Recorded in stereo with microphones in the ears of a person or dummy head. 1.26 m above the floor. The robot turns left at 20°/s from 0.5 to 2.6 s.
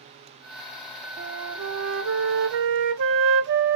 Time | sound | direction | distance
1.2 | a flute | 75° right (ahead or behind) | 0.7 m